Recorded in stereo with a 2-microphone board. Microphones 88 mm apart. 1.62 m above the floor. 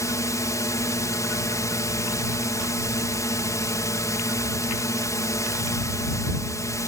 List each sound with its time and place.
0.0 s a drone: 40° left (ahead or behind)